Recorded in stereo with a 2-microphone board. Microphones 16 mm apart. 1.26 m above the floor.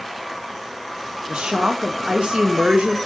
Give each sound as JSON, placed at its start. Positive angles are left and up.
{"t": 1.3, "sound": "a woman speaking", "side_deg": -75, "distance_m": 1.6}